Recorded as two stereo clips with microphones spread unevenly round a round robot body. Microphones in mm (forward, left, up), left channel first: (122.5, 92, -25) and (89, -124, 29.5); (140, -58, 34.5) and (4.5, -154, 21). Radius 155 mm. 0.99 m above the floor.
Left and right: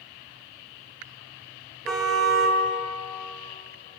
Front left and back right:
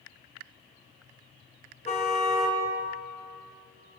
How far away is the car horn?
About 5 m.